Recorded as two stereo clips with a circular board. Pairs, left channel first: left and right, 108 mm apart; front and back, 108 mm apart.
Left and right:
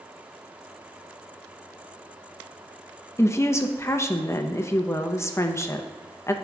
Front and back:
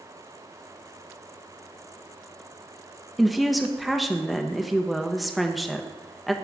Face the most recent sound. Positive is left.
turn(degrees=90)